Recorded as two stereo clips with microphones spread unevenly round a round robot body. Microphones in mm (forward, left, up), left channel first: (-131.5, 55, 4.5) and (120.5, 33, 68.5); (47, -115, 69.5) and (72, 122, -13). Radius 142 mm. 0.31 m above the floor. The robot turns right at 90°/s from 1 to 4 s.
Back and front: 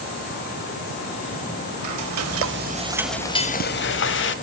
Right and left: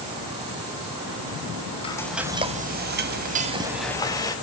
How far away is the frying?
About 1.2 m.